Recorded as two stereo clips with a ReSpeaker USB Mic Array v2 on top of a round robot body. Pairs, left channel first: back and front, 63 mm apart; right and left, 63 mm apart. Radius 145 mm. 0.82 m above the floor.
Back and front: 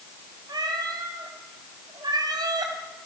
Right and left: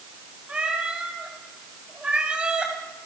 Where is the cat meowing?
15° left, 2.5 m.